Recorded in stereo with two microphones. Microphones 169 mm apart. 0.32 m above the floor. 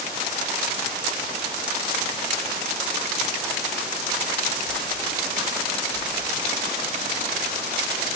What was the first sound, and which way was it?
Only background noise.